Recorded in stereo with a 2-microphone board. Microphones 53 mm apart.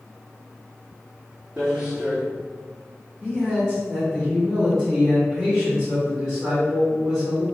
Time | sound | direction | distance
1.6 | footsteps | 15° right (ahead or behind) | 1.7 m
3.2 | a man speaking | centre (ahead or behind) | 1.8 m